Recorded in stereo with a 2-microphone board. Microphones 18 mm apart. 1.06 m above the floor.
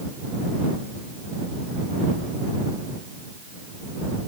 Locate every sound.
Only background noise.